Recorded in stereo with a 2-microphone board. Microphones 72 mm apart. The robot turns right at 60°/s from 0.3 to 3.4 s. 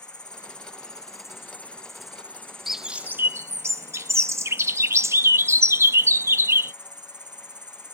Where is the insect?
80° left; by 7.9 s 95° right.